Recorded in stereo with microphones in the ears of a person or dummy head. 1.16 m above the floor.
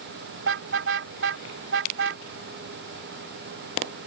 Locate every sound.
0.4 s a car horn: 70° right (ahead or behind)